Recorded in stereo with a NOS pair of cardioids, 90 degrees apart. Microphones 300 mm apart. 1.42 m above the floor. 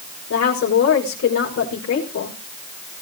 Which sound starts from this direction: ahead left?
A woman speaking, at 0.3 s.